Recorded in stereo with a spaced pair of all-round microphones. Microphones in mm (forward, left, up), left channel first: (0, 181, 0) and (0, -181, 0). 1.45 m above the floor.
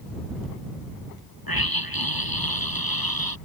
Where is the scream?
75° left (ahead or behind).